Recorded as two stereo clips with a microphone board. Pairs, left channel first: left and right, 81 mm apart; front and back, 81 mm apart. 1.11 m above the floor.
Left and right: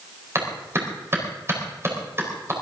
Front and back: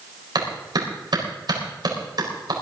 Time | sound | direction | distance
0.3 | a clap | 150° right | 4.5 m